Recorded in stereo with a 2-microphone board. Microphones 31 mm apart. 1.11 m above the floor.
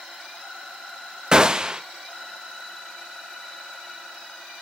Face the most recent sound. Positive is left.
turn(degrees=-25)  # may be behind; listen again after turning